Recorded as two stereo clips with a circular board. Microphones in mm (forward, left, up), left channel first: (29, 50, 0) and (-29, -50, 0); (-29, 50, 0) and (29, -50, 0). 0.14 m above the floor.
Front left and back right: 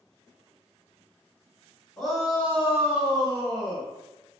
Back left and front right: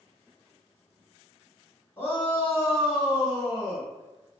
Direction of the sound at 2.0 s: 140° left.